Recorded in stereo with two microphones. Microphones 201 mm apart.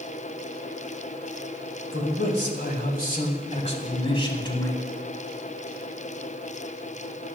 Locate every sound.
1.9 s a man speaking: 65° left (ahead or behind), 3 m; by 4.8 s 20° left (ahead or behind), 3.5 m